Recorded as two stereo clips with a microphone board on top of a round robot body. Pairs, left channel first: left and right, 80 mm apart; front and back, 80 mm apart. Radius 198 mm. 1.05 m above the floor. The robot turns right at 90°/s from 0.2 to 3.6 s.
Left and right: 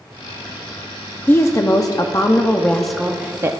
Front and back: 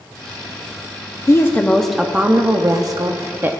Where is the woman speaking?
35° left, 0.9 m; by 3.6 s 120° right, 0.9 m.